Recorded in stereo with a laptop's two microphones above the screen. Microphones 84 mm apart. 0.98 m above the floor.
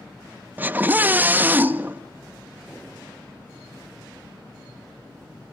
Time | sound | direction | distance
0.6 | a scream | 20° right (ahead or behind) | 1.0 m